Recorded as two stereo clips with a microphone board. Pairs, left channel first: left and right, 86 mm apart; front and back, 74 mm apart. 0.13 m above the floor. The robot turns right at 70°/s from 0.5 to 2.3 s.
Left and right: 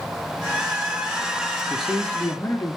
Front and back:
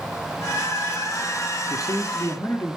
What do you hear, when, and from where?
1.7 s a man speaking: 5° right, 2.5 m; by 2.8 s 35° left, 2.5 m